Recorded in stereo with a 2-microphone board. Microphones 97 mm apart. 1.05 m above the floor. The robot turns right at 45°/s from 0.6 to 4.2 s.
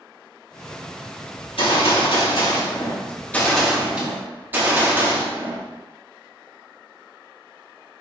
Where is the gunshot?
75° left, 2.5 m; by 5.6 s 160° right, 2.5 m.